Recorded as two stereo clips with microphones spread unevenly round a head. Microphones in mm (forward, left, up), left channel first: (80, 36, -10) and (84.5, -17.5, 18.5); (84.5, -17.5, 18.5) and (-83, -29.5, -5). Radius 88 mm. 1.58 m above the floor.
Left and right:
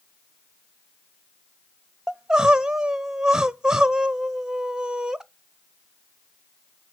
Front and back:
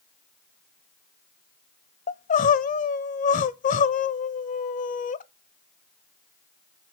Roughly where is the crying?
Ahead right.